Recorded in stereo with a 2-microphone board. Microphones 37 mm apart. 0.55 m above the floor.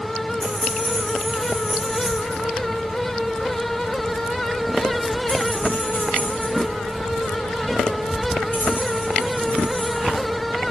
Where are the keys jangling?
15° right (ahead or behind), 2.5 m; by 10.7 s 65° left (ahead or behind), 3.5 m.